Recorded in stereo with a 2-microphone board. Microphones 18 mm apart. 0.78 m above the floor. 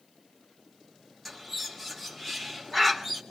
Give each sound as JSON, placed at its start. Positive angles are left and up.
{"t": 1.2, "sound": "a bird", "side_deg": 10, "distance_m": 2.0}